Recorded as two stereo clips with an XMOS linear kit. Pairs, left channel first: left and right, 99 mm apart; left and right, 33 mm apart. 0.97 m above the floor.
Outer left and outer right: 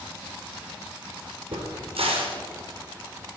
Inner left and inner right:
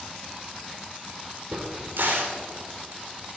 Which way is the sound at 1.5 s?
80° right.